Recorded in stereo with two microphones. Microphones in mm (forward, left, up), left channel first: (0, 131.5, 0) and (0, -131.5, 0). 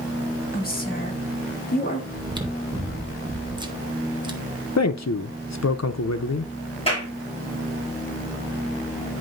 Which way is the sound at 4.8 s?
80° left.